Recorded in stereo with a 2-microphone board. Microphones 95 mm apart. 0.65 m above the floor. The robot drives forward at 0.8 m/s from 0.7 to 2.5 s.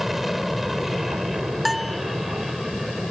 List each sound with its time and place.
0.0 s an aircraft: 5° right (ahead or behind)
1.6 s a bell: centre (ahead or behind)